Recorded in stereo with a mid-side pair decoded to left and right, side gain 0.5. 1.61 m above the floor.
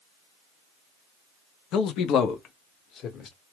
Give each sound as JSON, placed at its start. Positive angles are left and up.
{"t": 1.7, "sound": "a man speaking", "azimuth_deg": 70, "distance_m": 0.7}